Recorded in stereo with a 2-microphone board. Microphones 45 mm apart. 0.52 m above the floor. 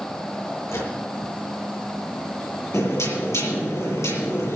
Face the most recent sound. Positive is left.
turn(degrees=85)